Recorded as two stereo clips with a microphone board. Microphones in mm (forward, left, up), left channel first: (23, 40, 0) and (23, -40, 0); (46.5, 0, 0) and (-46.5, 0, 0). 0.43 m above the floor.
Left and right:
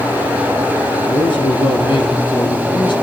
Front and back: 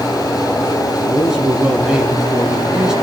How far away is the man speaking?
About 4.5 m.